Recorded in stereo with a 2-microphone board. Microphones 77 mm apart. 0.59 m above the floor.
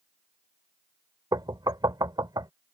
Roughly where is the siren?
No siren in this recording.